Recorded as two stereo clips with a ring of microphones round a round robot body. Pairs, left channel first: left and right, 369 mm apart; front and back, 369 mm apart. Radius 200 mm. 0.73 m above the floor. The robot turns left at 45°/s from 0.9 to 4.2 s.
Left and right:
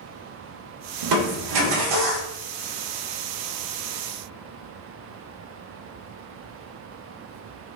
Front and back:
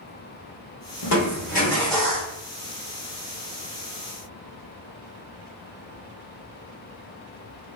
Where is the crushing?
50° right, 0.9 m; by 2.3 s 105° right, 0.9 m.